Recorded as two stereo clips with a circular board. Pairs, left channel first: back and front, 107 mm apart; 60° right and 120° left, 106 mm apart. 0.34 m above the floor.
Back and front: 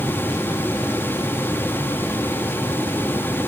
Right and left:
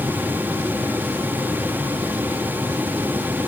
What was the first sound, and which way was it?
Only background noise.